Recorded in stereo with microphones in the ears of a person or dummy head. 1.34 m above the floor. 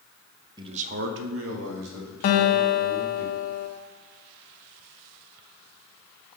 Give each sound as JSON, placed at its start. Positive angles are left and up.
{"t": 0.6, "sound": "a man speaking", "side_deg": -25, "distance_m": 0.9}
{"t": 2.2, "sound": "a guitar", "side_deg": 45, "distance_m": 1.1}